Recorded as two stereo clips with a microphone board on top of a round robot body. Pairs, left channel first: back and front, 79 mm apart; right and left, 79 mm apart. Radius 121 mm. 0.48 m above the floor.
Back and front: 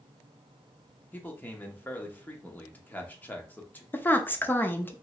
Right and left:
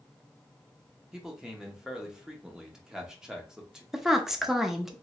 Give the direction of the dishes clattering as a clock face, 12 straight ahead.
I don't hear dishes clattering.